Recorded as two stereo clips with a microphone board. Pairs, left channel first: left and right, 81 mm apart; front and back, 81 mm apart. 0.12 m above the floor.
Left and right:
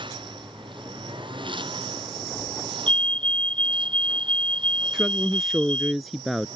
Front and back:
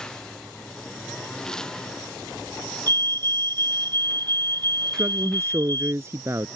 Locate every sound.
0.0 s a lawn mower: 80° right
2.9 s a fire alarm: 165° left
4.9 s a woman speaking: straight behind